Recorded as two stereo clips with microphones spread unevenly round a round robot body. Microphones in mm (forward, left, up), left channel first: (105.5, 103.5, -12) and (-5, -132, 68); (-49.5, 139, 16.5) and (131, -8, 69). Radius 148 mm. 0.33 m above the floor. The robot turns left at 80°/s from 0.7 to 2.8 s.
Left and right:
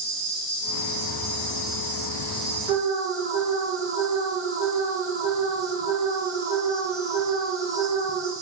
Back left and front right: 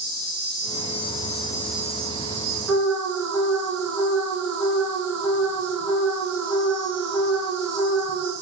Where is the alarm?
160° right, 2 m; by 8.3 s 170° right, 2 m.